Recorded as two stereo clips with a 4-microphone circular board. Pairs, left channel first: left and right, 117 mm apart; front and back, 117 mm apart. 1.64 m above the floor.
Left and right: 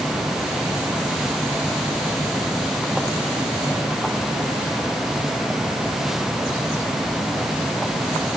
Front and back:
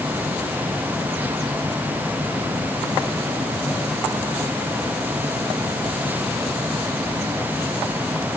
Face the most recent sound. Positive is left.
No sound to turn to.